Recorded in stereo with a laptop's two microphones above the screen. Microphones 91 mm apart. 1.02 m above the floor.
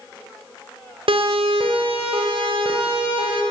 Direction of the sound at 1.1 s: 80° right.